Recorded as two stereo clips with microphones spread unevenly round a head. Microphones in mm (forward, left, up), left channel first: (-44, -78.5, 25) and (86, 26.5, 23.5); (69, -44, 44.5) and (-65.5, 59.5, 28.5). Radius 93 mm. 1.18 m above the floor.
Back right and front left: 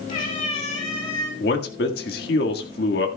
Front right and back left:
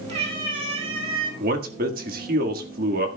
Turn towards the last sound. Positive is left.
turn(degrees=180)